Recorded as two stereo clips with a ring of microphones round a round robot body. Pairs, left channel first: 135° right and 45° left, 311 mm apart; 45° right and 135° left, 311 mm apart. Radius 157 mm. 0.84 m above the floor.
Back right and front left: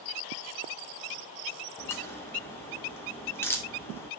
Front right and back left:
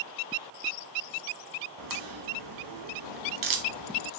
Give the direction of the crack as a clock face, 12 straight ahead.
7 o'clock.